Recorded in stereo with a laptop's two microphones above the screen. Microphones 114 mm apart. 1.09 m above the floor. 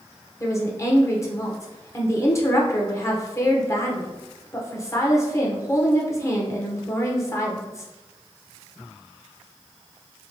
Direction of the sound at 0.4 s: 25° left (ahead or behind).